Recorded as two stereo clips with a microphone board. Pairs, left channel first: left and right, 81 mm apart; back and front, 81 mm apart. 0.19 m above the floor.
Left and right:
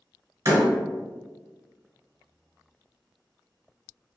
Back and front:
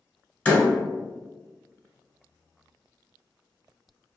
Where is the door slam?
115° right, 1.1 m.